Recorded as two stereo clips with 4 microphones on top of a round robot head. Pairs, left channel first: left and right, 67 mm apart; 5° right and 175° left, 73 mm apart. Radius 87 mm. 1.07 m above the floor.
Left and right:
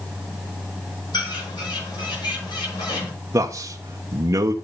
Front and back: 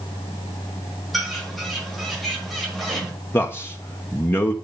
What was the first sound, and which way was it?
A bird, 85° left.